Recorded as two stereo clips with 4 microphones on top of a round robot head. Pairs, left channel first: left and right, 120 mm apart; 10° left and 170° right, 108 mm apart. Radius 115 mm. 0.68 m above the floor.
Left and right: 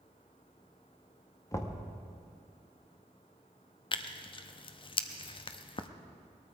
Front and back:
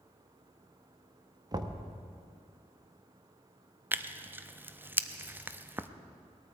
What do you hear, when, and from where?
1.5 s knocking: 150° left, 1.2 m
3.9 s tearing paper: 120° left, 0.8 m